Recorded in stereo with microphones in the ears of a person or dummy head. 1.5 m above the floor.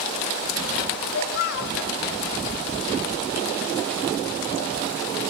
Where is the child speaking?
55° left (ahead or behind), 2 m.